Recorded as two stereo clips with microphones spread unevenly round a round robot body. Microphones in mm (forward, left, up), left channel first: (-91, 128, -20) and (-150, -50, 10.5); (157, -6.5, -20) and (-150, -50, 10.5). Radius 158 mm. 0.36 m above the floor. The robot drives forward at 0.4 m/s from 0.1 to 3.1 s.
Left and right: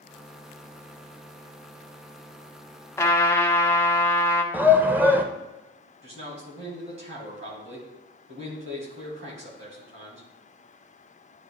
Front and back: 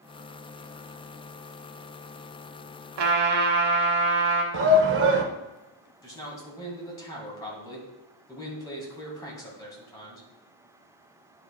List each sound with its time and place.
3.0 s a trumpet: 145° left, 1.1 m; by 4.4 s 150° left, 1.2 m
4.5 s a shout: 165° left, 0.9 m
6.0 s a man speaking: 70° right, 2.5 m